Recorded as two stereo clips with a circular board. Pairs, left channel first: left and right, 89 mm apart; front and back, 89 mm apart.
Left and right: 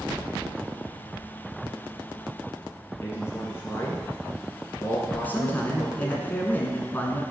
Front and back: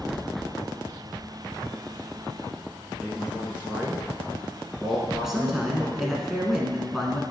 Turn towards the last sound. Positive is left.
turn(degrees=100)